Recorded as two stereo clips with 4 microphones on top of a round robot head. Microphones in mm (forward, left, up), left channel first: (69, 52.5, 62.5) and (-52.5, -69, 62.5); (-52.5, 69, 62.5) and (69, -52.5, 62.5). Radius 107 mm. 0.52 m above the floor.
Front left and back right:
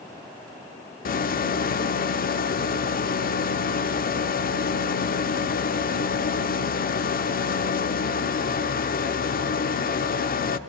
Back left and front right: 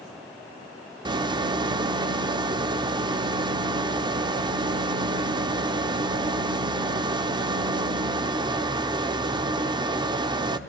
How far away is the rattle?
About 0.8 m.